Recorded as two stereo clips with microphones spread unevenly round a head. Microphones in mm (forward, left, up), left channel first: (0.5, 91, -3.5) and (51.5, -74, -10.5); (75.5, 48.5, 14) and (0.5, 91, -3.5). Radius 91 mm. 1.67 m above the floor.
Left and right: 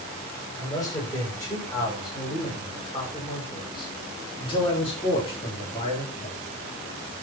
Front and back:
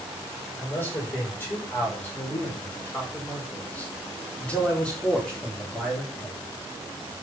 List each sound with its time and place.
0.6 s a man speaking: 35° left, 7 m; by 6.4 s 55° left, 4 m